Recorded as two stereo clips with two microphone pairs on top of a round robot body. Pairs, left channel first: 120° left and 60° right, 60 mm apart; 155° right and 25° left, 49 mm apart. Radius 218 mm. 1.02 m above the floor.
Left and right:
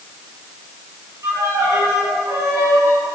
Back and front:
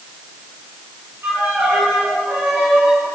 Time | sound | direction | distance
1.2 | a violin | 20° right | 3 m